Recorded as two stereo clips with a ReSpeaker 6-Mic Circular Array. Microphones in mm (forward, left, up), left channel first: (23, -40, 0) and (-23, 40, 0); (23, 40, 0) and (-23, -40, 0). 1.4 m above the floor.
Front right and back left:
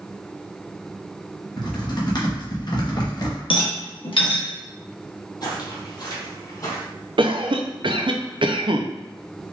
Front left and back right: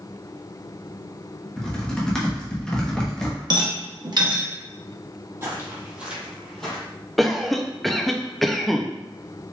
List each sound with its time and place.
1.6 s typing on a keyboard: 20° right, 1.1 m
3.5 s a rattle: 80° right, 0.9 m
5.4 s footsteps: 65° right, 1.9 m; by 6.8 s 20° right, 2 m
7.2 s a cough: 150° left, 0.6 m